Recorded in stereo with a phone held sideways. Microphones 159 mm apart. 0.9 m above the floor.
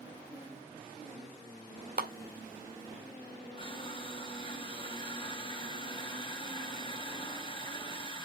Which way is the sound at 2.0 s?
75° right (ahead or behind).